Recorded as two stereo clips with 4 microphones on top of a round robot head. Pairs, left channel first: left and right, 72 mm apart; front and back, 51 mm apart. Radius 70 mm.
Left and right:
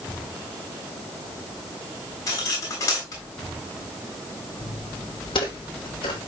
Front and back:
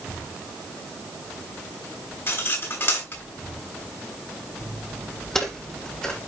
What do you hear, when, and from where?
2.3 s cutlery clinking: 35° left, 8 m
4.6 s footsteps: 85° left, 2.5 m; by 6.2 s 70° left, 3.5 m